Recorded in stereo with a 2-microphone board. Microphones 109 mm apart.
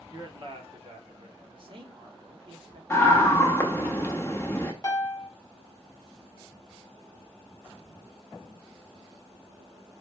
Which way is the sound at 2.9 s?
25° left (ahead or behind).